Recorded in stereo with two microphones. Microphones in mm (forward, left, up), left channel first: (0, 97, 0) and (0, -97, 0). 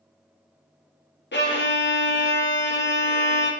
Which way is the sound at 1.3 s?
65° left (ahead or behind).